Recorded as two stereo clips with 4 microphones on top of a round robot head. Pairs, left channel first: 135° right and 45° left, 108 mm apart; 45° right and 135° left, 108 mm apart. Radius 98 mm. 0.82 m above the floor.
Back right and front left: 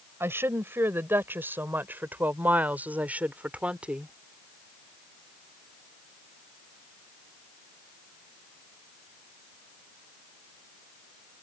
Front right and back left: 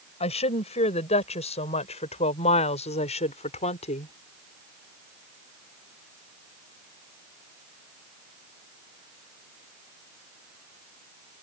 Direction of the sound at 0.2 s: 20° right.